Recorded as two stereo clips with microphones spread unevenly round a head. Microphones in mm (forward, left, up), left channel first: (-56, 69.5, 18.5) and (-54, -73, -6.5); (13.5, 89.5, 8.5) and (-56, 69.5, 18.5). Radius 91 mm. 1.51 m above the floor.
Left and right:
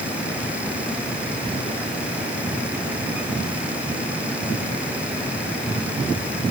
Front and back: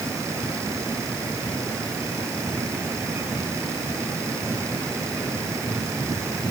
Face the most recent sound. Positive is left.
No sound to turn to.